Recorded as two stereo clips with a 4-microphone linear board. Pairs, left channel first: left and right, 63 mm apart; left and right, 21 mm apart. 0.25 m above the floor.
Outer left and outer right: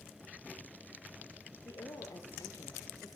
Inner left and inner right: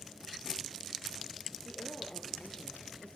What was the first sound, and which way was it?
A woman speaking, 75° left (ahead or behind).